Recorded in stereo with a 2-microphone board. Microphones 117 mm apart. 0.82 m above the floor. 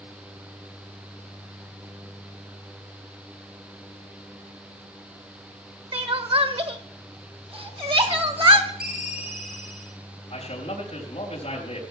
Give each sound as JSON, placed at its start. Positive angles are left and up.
{"t": 5.9, "sound": "crying", "side_deg": -50, "distance_m": 1.4}
{"t": 8.8, "sound": "a ringtone", "side_deg": 75, "distance_m": 1.5}
{"t": 10.3, "sound": "a man speaking", "side_deg": 60, "distance_m": 4.0}